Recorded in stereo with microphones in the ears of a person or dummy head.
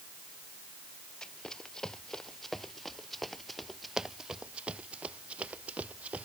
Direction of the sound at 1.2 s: 5° left (ahead or behind).